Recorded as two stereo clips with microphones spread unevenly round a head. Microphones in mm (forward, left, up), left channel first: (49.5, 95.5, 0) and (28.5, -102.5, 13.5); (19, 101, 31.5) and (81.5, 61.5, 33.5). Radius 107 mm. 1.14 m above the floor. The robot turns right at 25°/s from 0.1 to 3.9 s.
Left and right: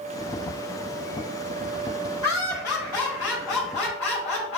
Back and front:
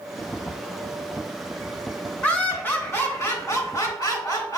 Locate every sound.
2.2 s laughter: 70° left, 1.9 m; by 4.6 s 110° left, 1.9 m